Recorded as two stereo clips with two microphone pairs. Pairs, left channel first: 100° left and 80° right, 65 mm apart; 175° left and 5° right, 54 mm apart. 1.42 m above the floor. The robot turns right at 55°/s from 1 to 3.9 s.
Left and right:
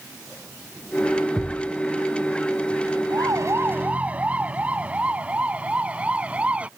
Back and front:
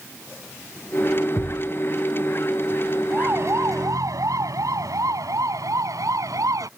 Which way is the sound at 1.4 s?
175° left.